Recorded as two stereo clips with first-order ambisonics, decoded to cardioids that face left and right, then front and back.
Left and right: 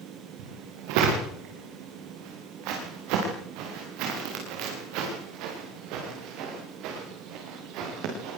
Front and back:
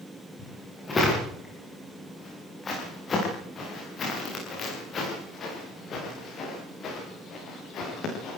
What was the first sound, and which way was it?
Footsteps, 75° right.